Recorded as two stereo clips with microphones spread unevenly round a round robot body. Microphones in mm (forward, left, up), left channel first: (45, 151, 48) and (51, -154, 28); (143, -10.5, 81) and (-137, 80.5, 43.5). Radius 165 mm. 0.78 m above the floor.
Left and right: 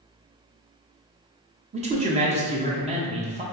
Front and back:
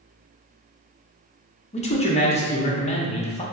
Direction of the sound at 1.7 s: 75° right.